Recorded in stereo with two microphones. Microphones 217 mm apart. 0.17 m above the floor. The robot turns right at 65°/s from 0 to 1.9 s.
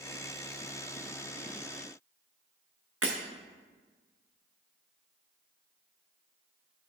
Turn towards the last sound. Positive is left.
turn(degrees=-80)